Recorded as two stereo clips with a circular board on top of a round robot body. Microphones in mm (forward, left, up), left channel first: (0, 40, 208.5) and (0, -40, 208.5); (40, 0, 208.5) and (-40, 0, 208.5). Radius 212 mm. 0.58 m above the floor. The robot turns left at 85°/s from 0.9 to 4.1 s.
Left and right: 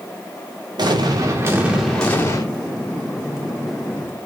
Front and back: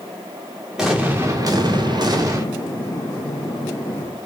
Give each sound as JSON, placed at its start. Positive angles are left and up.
{"t": 0.8, "sound": "an explosion", "azimuth_deg": -95, "distance_m": 2.5}